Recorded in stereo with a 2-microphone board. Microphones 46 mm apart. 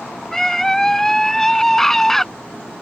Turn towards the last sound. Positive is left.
turn(degrees=10)  # may be behind; listen again after turning